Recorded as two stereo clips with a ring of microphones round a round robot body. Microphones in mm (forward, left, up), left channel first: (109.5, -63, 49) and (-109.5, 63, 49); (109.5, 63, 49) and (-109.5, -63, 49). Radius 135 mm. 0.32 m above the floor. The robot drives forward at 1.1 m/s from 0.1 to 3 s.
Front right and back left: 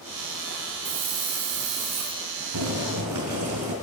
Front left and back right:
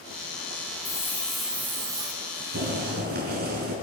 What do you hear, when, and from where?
0.8 s a hiss: 105° left, 2 m; by 2.2 s 135° left, 3 m
2.5 s boiling: 155° left, 5.5 m; by 3.7 s 160° left, 6 m